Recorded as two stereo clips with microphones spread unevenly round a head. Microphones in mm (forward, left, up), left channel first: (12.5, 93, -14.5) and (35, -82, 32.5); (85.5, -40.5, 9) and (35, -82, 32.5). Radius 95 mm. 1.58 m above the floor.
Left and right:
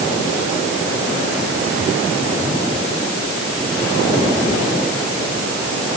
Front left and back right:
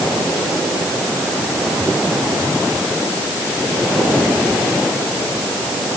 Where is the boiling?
I don't hear boiling.